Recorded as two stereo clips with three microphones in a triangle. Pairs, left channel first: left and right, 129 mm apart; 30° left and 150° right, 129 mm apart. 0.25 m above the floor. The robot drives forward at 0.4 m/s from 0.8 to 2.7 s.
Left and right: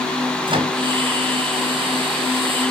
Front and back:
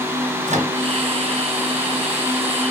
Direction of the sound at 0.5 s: 140° right.